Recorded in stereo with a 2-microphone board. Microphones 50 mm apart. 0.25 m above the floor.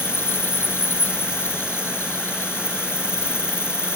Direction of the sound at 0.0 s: 50° left (ahead or behind).